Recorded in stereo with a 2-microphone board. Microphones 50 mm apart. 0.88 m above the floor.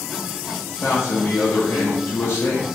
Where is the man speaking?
50° left (ahead or behind), 0.6 m.